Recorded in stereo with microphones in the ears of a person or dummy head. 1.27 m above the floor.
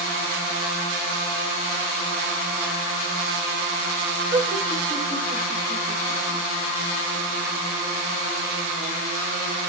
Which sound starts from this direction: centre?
Laughter, at 4.3 s.